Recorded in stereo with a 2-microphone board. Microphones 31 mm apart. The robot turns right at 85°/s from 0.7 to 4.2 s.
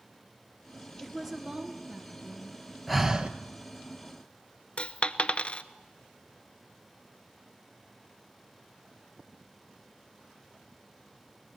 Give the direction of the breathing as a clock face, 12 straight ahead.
6 o'clock.